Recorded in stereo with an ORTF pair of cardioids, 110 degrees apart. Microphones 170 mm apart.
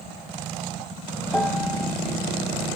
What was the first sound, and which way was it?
A piano, 5° left.